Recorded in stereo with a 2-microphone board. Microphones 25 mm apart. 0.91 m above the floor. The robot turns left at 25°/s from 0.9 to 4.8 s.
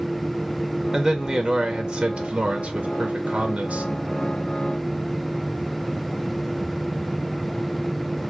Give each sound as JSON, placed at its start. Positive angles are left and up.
{"t": 0.9, "sound": "a man speaking", "azimuth_deg": -10, "distance_m": 1.1}